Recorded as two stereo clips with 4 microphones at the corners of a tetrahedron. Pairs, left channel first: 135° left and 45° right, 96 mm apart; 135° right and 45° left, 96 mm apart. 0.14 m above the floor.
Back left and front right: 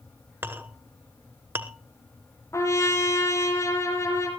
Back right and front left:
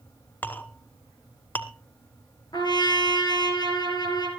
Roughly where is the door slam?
No door slam in this recording.